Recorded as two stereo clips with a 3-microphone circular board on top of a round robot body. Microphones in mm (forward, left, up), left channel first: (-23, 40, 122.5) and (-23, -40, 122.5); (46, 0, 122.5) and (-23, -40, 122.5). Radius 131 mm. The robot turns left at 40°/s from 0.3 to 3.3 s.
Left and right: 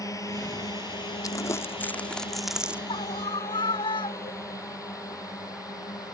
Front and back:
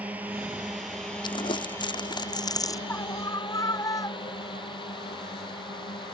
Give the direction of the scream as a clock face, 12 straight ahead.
9 o'clock.